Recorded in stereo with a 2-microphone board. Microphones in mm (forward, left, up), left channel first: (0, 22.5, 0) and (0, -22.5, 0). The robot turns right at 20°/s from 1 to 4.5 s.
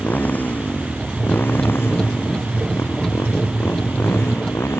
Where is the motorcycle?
40° left (ahead or behind); by 4.8 s 65° left (ahead or behind).